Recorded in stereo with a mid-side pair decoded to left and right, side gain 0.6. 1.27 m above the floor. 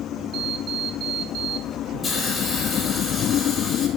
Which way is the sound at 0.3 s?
50° right.